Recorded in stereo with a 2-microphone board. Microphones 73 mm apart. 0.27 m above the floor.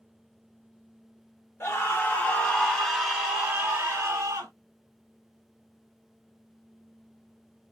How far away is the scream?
About 1.4 m.